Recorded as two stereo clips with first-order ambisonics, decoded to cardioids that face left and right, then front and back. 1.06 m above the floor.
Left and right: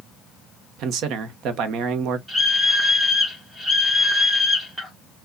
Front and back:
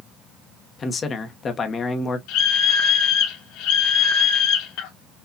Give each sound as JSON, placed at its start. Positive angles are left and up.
{"t": 0.8, "sound": "a man speaking", "azimuth_deg": -60, "distance_m": 0.9}
{"t": 2.3, "sound": "a scream", "azimuth_deg": -5, "distance_m": 1.2}